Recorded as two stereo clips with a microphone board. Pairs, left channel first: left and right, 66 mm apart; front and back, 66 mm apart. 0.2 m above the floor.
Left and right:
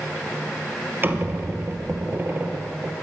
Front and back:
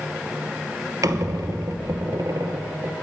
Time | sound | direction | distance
1.0 | a squeak | 145° right | 0.5 m